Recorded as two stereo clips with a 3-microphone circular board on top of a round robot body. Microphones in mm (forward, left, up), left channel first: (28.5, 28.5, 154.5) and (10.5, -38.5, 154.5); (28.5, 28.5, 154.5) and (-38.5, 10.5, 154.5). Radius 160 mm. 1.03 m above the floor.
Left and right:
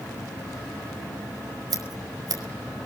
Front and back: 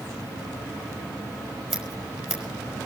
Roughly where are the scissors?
Right.